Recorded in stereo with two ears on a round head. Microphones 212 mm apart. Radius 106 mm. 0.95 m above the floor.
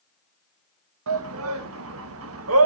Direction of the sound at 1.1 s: 60° right (ahead or behind).